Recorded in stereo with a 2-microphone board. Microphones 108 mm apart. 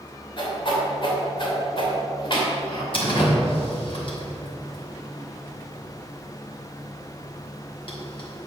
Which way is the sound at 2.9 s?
55° left (ahead or behind).